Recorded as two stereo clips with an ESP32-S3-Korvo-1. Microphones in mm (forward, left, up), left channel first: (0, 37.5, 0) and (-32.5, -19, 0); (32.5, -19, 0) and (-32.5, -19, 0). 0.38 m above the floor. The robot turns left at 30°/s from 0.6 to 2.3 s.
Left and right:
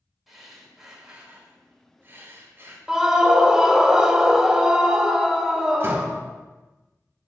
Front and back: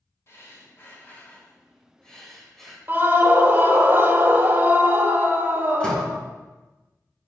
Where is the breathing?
35° right, 1.3 m; by 2.8 s 85° right, 1.3 m.